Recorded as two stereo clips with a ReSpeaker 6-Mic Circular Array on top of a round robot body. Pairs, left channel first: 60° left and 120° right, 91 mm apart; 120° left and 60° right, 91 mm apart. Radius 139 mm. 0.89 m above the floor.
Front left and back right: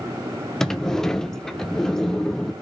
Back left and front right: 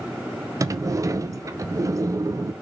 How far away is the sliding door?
About 0.6 m.